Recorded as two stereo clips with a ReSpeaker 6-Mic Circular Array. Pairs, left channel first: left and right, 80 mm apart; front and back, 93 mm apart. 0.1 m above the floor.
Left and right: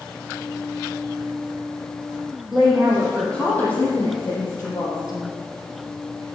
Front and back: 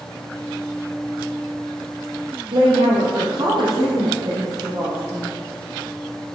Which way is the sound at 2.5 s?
Straight behind.